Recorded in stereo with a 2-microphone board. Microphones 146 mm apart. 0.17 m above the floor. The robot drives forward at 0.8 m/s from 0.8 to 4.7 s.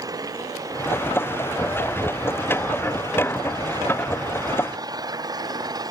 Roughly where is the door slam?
No door slam in this recording.